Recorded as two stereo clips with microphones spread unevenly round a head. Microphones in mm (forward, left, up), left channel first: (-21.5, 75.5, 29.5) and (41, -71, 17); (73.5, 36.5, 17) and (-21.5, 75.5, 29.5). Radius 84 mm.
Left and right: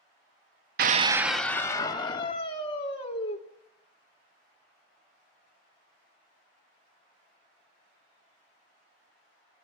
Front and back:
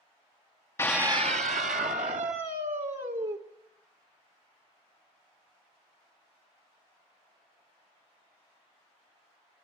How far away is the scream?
About 0.7 m.